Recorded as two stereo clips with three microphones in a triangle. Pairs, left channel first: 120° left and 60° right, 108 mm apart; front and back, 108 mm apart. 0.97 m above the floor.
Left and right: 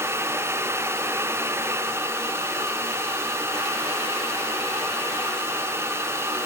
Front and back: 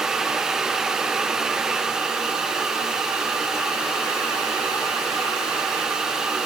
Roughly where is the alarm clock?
No alarm clock in this recording.